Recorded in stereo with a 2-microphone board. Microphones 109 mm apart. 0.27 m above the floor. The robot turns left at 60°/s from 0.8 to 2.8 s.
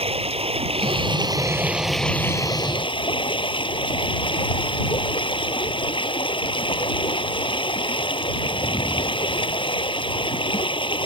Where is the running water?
115° right; by 11.1 s 125° left.